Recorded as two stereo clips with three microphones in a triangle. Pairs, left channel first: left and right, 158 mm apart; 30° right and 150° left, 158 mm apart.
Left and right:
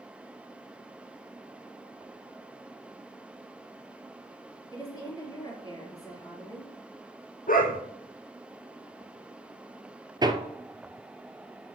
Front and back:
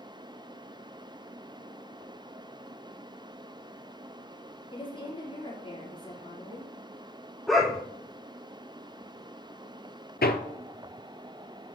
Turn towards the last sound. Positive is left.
turn(degrees=-25)